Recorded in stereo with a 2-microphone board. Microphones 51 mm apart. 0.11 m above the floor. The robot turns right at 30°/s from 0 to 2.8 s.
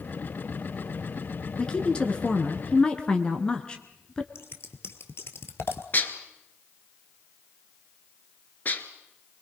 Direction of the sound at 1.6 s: 20° left (ahead or behind).